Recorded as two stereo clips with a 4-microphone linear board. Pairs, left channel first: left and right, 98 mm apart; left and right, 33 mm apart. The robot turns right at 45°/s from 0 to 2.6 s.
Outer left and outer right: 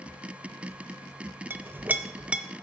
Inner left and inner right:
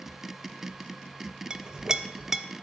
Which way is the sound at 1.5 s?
20° right (ahead or behind).